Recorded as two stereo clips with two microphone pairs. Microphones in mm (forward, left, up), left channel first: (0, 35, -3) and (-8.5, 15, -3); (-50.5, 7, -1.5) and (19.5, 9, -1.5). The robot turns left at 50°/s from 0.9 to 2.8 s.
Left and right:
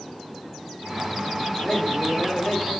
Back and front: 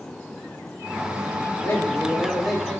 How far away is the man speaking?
About 4 m.